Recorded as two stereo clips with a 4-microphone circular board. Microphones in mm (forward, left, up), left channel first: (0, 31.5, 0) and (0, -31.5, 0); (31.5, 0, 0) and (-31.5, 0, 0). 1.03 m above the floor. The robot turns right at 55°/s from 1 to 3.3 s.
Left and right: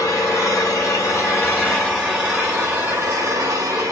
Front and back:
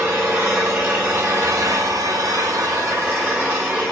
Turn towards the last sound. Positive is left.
turn(degrees=-110)